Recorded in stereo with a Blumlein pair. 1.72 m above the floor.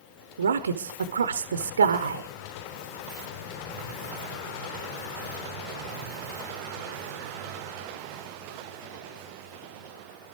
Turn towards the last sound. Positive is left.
turn(degrees=-70)